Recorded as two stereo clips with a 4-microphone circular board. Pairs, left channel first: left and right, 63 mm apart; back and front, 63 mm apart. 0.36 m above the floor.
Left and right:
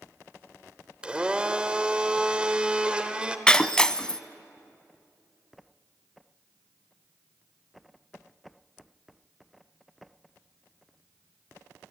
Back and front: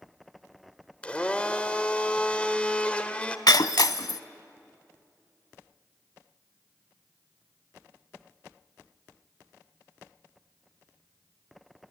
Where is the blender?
135° right, 1.1 m.